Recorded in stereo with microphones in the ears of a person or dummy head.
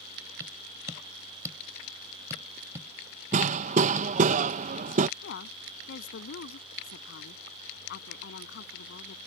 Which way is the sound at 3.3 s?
40° right (ahead or behind).